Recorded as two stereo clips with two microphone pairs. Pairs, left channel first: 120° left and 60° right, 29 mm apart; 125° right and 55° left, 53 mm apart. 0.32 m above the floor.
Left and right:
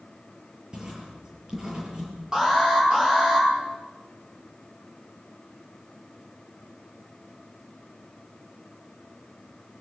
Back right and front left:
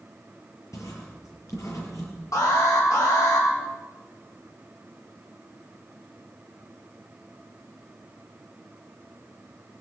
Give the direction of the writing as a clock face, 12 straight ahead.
4 o'clock.